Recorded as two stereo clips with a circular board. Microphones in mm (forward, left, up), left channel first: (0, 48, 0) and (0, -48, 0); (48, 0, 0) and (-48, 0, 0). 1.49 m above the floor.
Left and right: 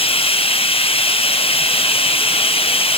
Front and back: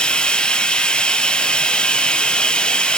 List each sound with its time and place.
0.0 s running water: 80° left, 0.8 m